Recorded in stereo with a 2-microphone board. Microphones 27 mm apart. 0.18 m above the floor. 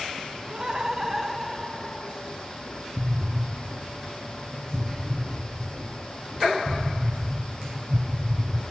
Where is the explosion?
20° right (ahead or behind), 1.5 m.